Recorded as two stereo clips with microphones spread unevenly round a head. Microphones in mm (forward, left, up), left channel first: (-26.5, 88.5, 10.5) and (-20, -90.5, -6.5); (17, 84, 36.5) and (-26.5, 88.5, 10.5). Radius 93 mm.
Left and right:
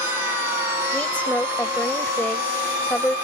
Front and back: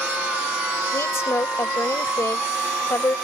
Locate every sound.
0.9 s a woman speaking: 10° left